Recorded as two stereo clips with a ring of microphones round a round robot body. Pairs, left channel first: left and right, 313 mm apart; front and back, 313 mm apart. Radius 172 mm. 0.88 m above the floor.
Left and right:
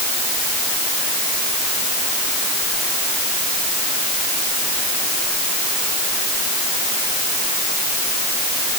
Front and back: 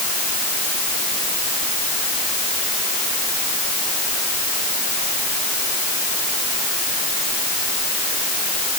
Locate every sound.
Only background noise.